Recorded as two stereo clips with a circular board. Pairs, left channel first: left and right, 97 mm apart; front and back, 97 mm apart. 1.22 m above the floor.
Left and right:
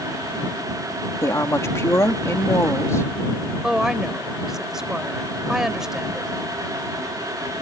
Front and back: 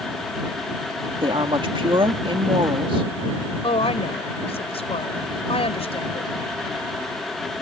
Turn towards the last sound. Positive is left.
turn(degrees=-5)